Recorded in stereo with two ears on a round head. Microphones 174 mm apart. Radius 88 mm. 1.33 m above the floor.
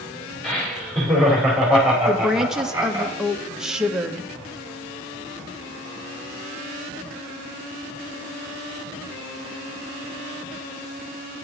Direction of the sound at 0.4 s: 5° left (ahead or behind).